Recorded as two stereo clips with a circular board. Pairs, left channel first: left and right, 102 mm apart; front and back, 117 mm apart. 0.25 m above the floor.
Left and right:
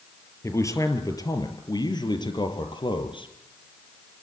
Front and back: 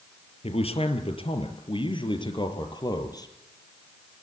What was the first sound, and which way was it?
A man speaking, 30° left.